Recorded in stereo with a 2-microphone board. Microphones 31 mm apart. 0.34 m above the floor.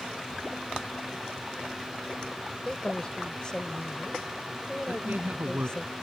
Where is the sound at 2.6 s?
25° left (ahead or behind).